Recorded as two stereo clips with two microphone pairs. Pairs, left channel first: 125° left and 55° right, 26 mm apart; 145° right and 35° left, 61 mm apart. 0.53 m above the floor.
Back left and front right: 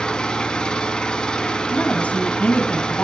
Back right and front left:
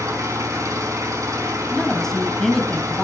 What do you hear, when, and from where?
0.0 s an engine running: 65° left, 4.5 m
1.7 s a woman speaking: 135° left, 3.5 m